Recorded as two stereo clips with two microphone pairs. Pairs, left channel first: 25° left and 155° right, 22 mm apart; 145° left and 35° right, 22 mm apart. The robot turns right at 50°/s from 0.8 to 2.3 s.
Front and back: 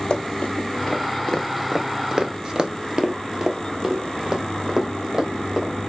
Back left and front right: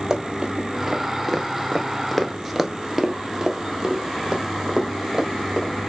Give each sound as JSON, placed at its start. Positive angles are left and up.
{"t": 0.1, "sound": "running footsteps", "azimuth_deg": 25, "distance_m": 1.4}